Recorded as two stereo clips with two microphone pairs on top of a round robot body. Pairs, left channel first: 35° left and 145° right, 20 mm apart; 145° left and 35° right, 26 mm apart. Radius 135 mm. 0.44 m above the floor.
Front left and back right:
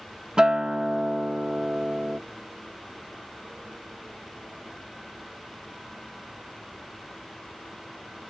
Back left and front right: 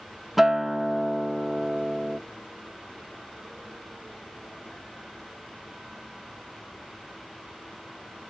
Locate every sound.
0.4 s a guitar: 115° right, 0.6 m